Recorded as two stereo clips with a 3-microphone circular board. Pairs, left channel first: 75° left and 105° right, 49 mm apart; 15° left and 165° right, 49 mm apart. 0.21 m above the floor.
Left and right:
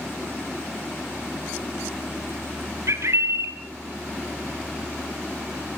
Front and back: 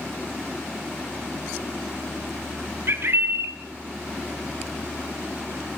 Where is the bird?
130° right, 2.5 m.